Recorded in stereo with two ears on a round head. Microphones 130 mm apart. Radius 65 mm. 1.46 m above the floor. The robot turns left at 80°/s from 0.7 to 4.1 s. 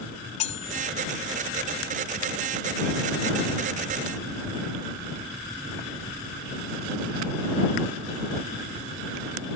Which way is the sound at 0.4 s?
50° left (ahead or behind).